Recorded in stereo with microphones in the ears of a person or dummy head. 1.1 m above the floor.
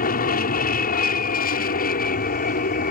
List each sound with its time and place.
0.0 s an aircraft: 40° left (ahead or behind)